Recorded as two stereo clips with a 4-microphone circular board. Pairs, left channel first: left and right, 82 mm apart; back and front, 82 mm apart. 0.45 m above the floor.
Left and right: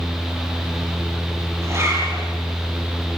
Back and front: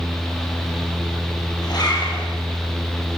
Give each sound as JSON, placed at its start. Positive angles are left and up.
{"t": 1.6, "sound": "a zipper", "azimuth_deg": -145, "distance_m": 6.0}